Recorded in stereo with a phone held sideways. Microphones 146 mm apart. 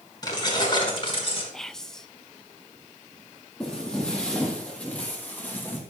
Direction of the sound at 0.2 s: 30° left (ahead or behind).